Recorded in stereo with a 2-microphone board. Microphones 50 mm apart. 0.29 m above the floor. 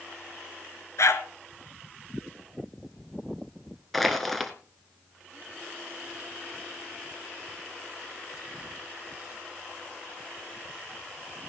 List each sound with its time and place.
1.0 s a dog barking: 70° left (ahead or behind), 1.3 m
3.9 s crushing: centre (ahead or behind), 1.3 m